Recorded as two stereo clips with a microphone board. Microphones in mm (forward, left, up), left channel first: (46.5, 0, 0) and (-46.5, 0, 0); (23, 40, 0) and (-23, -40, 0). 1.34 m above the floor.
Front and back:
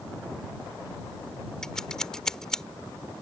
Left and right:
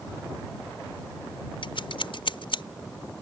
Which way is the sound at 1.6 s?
85° left.